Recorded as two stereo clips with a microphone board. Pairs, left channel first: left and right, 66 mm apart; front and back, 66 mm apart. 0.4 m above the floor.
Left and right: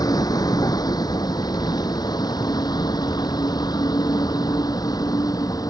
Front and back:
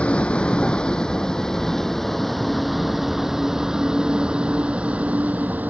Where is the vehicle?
70° left; by 5.7 s 115° left.